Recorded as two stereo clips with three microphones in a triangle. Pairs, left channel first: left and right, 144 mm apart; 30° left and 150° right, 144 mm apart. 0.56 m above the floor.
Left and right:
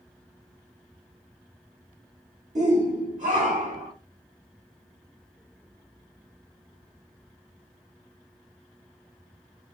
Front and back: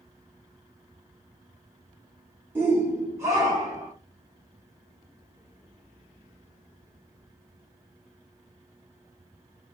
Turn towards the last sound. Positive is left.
turn(degrees=-85)